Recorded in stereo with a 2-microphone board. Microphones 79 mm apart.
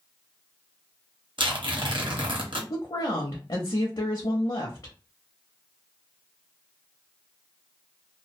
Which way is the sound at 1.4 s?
70° right (ahead or behind).